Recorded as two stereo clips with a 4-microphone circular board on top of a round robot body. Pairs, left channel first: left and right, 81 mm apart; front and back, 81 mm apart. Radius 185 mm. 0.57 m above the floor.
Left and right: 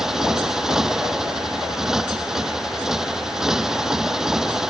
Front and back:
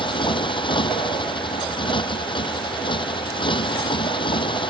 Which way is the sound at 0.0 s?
5° right.